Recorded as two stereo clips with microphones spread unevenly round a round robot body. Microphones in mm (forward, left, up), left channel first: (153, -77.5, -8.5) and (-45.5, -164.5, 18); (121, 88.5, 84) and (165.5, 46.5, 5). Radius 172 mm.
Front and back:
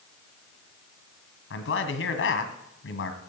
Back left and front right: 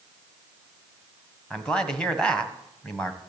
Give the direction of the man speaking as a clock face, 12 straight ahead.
11 o'clock.